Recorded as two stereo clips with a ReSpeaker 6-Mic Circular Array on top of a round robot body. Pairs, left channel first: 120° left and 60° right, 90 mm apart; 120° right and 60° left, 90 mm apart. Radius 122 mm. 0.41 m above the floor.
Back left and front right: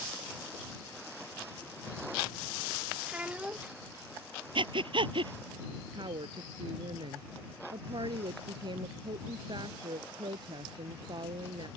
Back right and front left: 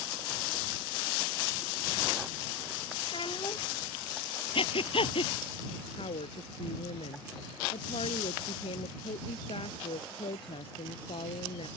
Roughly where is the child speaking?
Behind right.